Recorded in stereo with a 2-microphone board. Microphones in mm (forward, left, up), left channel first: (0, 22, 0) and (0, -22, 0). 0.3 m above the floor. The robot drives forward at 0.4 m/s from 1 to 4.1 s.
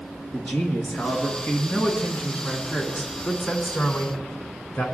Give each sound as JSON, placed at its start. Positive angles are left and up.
{"t": 0.3, "sound": "a man speaking", "side_deg": 50, "distance_m": 2.5}